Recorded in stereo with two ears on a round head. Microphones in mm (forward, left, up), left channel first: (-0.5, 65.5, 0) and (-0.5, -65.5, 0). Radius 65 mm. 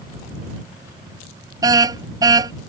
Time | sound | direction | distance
1.6 | a car horn | 25° right (ahead or behind) | ?